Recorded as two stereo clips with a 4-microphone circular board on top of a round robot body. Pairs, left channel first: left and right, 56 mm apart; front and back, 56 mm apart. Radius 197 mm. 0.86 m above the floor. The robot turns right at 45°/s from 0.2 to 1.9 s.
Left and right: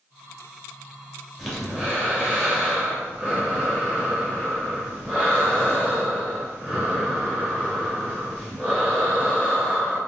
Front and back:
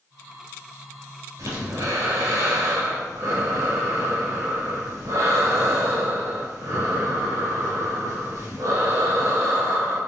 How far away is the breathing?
About 2.5 m.